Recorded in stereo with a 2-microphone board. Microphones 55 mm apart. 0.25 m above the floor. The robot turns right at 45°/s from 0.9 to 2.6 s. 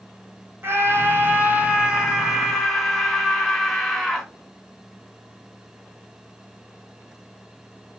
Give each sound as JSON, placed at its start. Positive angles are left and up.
{"t": 0.6, "sound": "a scream", "azimuth_deg": -70, "distance_m": 2.5}